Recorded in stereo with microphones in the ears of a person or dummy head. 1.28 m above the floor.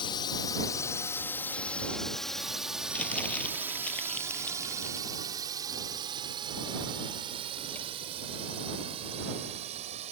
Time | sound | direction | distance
0.0 | a drone | 25° left (ahead or behind) | ?
2.9 | crumpling | 5° left (ahead or behind) | ?